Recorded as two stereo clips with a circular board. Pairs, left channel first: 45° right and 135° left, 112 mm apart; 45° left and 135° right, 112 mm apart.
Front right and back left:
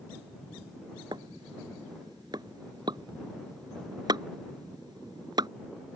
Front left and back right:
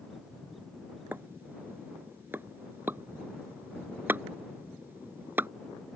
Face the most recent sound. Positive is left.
turn(degrees=160)